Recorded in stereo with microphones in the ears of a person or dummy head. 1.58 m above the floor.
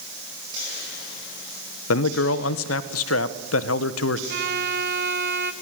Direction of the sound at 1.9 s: 85° left.